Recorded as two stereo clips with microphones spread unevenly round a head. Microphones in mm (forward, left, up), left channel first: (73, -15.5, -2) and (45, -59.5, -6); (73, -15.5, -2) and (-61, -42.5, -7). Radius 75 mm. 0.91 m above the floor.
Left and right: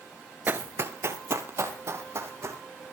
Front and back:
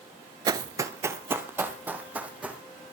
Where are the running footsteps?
135° right, 0.9 m; by 2.6 s 90° right, 3.5 m.